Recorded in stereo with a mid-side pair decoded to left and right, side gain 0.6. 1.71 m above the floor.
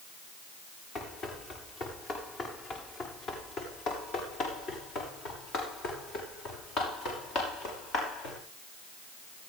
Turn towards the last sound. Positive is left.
turn(degrees=65)